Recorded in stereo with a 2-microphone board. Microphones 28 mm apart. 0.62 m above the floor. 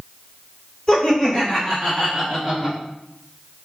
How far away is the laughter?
About 1.8 m.